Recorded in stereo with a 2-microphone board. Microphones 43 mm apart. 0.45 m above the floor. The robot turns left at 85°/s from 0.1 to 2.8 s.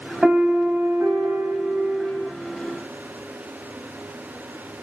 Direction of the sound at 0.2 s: 30° right.